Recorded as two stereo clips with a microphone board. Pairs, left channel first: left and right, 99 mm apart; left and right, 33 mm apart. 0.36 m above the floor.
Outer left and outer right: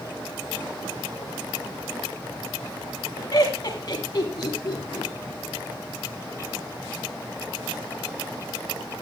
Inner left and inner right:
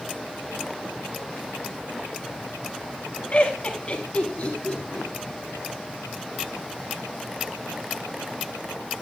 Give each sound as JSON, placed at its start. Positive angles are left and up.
{"t": 3.3, "sound": "laughter", "side_deg": 45, "distance_m": 3.0}